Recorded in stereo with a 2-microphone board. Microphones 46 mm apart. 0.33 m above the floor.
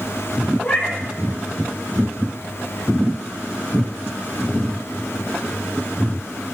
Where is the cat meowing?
25° left (ahead or behind), 5.5 m.